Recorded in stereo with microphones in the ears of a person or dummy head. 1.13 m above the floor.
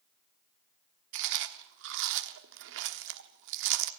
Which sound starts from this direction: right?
Chewing, at 1.1 s.